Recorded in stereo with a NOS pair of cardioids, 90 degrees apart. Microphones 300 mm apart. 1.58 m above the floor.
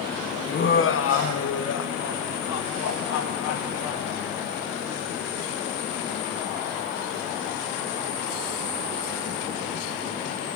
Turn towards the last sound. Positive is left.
turn(degrees=70)